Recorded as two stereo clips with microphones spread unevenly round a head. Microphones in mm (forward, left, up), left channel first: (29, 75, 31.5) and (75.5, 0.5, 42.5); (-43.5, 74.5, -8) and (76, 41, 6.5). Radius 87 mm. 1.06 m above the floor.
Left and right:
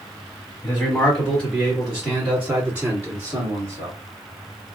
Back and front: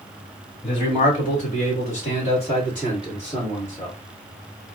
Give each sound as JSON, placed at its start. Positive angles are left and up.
{"t": 0.6, "sound": "a man speaking", "azimuth_deg": -170, "distance_m": 1.9}